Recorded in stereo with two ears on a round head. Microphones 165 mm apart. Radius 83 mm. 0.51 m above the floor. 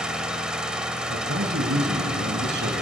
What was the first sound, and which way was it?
An engine running, 5° right (ahead or behind).